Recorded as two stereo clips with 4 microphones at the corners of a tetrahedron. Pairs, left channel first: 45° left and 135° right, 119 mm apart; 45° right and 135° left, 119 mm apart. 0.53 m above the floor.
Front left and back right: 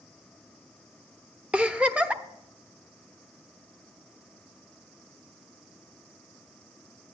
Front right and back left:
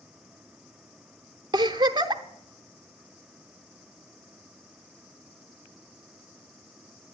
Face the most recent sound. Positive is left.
turn(degrees=150)